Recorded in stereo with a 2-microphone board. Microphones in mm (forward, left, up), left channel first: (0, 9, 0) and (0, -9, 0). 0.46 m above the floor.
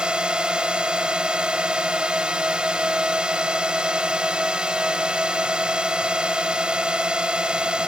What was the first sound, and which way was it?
A drone, 60° right (ahead or behind).